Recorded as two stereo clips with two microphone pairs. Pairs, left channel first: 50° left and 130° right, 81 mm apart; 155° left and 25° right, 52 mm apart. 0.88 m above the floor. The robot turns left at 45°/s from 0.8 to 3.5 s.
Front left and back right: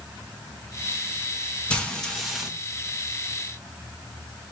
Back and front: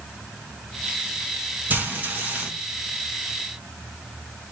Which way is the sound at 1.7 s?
15° right.